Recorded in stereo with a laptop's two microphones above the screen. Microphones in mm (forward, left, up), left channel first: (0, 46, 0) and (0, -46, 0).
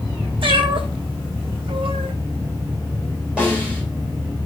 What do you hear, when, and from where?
0.4 s a cat meowing: 75° right (ahead or behind), 2.5 m; by 2.1 s 80° right, 1.3 m
3.4 s a snare drum: 10° right (ahead or behind), 3 m